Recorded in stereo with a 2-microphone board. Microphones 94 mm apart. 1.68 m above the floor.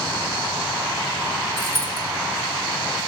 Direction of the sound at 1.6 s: 40° right (ahead or behind).